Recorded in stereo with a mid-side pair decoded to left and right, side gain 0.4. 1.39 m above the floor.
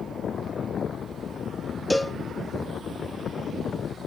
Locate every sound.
1.9 s a cowbell: 5° left, 0.9 m